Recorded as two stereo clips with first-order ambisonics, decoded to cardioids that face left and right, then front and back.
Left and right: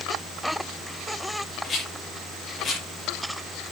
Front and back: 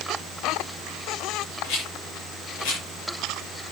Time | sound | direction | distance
1.6 | a rattle | 15° left | 7.5 m